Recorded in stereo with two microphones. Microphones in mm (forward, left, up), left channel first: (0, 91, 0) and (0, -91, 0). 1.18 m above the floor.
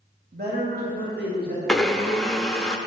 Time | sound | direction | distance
0.3 | a man speaking | 60° right (ahead or behind) | 2.0 m
1.7 | a blender | 5° left (ahead or behind) | 0.7 m